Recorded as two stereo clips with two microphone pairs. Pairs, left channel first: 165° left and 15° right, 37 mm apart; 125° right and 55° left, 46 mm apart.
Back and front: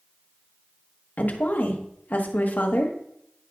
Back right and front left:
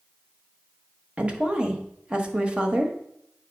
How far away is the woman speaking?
About 1.2 m.